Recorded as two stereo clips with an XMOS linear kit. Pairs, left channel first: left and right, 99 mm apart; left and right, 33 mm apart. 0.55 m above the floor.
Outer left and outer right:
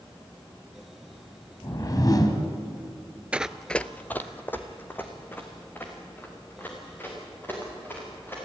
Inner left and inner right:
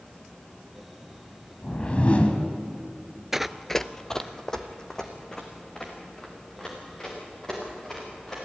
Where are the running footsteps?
10° right (ahead or behind), 0.6 m; by 8.4 s 20° left (ahead or behind), 7.5 m.